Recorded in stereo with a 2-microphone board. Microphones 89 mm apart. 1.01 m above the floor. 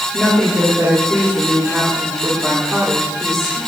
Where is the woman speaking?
15° left (ahead or behind), 3 m; by 3.6 s centre (ahead or behind), 4.5 m.